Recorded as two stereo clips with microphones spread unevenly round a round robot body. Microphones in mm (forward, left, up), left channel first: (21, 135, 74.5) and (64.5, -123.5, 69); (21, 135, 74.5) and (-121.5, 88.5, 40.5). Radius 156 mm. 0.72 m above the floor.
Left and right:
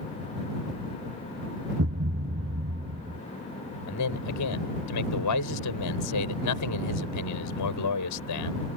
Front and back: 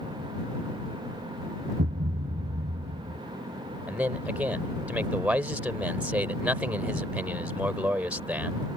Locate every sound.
1.8 s a thud: 130° right
3.9 s a man speaking: 120° left